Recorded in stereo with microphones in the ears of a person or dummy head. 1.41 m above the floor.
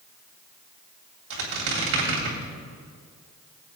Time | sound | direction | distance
1.3 | a squeak | 65° right (ahead or behind) | 2.5 m